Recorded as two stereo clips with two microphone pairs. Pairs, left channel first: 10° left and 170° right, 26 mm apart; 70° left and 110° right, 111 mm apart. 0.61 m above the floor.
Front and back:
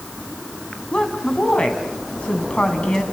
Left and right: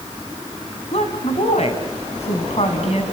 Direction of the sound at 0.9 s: 60° left.